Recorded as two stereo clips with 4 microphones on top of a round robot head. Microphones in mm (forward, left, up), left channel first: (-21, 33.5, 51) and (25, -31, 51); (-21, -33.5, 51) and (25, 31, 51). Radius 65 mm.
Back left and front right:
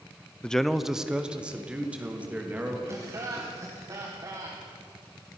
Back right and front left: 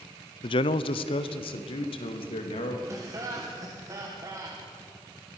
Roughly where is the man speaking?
Behind right.